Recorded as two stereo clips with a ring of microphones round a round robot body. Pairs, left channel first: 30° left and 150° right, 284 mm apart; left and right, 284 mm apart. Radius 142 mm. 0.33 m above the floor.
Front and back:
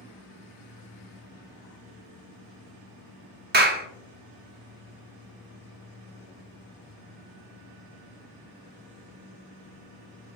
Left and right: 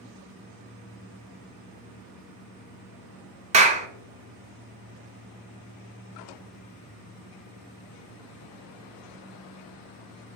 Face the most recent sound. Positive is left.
turn(degrees=-135)